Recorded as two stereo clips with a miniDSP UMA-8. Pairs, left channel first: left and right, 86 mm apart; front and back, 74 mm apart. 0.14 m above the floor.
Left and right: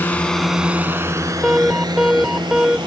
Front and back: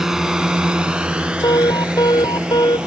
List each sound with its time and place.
0.0 s a drone: 105° left; by 2.9 s 105° right
1.4 s an alarm: 10° right